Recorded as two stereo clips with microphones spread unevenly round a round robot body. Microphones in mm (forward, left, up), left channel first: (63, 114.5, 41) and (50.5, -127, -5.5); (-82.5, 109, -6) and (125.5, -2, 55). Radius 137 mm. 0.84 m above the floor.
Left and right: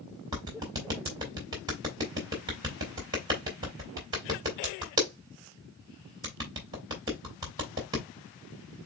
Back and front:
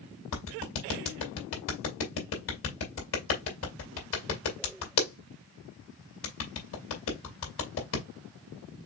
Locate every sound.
0.3 s a clap: 170° right, 2 m